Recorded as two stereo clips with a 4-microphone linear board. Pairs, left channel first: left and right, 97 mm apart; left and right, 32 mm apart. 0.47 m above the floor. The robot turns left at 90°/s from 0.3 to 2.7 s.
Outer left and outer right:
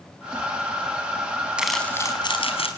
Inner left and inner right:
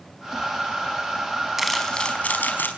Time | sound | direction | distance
1.6 | crumpling | 170° right | 5 m